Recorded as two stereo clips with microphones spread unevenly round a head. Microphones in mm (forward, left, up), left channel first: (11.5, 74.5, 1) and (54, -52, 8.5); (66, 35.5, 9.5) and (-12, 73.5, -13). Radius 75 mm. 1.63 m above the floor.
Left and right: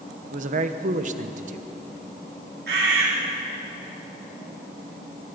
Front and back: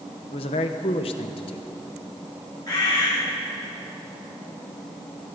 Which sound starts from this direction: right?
A bird, at 2.7 s.